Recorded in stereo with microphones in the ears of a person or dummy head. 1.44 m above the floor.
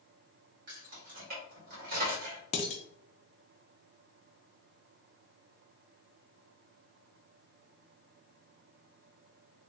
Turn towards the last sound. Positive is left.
turn(degrees=40)  # may be behind; listen again after turning